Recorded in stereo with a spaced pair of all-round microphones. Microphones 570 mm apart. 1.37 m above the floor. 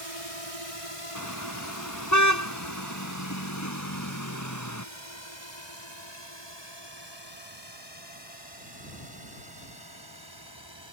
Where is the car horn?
30° left (ahead or behind).